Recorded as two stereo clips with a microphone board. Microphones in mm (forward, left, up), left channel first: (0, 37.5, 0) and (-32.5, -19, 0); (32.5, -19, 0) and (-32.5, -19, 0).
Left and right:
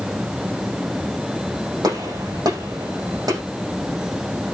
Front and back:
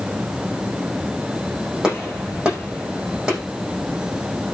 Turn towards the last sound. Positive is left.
turn(degrees=-100)